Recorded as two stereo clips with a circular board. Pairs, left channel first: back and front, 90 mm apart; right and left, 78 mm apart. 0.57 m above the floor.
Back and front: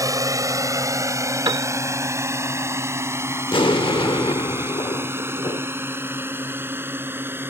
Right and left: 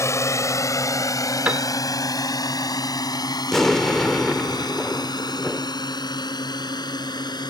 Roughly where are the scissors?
No scissors in this recording.